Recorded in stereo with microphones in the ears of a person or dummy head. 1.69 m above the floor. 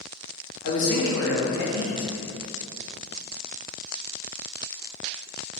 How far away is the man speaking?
About 0.6 m.